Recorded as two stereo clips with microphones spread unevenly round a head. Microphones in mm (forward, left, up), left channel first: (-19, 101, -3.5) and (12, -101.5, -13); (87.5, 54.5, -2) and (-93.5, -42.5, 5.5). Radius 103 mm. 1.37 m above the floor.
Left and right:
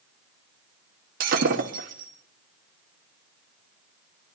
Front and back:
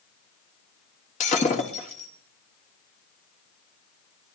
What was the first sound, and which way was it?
Breaking glass, 30° right.